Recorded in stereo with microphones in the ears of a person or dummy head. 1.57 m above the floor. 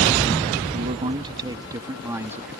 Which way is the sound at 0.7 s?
35° right (ahead or behind).